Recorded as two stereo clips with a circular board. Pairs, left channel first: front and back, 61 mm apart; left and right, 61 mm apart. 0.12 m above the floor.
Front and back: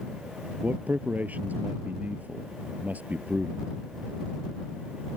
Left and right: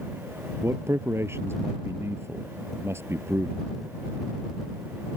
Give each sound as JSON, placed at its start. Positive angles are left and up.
{"t": 0.6, "sound": "a man speaking", "azimuth_deg": -125}